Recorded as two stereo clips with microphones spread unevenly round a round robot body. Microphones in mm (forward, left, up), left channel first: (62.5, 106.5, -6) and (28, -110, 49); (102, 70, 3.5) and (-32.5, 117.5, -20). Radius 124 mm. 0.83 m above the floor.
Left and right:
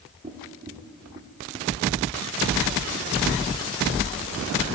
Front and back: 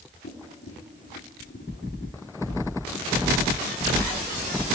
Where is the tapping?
35° right, 2.5 m.